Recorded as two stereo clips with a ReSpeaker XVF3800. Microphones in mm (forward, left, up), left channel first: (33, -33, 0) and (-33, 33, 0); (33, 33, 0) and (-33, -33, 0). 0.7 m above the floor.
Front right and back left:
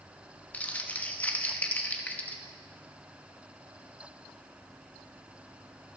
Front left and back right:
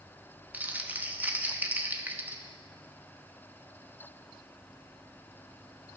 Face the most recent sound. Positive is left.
turn(degrees=-95)